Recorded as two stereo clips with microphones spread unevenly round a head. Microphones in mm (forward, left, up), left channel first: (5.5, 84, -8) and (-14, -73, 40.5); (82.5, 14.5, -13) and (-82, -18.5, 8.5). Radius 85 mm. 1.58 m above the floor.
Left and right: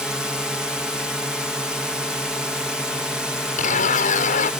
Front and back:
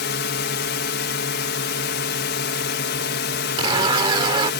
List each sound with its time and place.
0.0 s a drone: 5° right
3.6 s a zipper: 130° left